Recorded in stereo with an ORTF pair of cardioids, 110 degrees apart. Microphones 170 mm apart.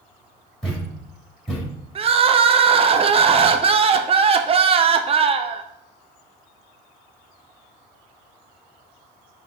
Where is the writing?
No writing in this recording.